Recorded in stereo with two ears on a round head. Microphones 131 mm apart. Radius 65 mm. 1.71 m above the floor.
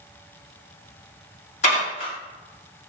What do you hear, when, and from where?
1.6 s dishes clattering: 50° left (ahead or behind), 2 m